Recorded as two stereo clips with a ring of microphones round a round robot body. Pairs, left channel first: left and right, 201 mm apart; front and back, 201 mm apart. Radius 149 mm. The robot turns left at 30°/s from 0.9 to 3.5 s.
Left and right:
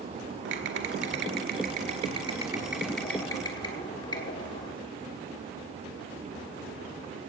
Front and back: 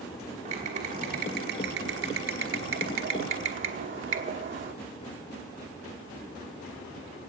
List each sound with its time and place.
0.5 s typing on a keyboard: 120° right, 1.2 m; by 4.7 s 160° left, 1.2 m